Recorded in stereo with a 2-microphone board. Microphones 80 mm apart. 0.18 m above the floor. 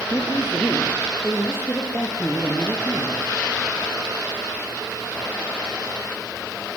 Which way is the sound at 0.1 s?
30° left (ahead or behind).